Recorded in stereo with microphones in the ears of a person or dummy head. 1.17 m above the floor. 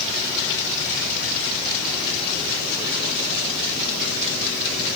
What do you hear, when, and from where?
Only background noise.